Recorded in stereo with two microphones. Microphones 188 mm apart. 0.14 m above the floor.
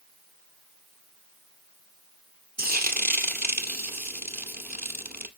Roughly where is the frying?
Right.